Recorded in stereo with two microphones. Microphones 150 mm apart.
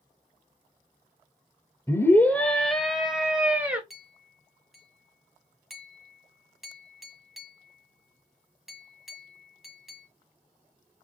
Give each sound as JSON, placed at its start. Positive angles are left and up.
{"t": 1.9, "sound": "a scream", "side_deg": 20, "distance_m": 0.9}
{"t": 3.9, "sound": "a clink", "side_deg": 0, "distance_m": 1.8}